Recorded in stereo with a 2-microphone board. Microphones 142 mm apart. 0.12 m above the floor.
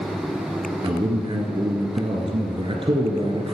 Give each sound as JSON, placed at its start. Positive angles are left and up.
{"t": 0.8, "sound": "a man speaking", "side_deg": -40, "distance_m": 1.6}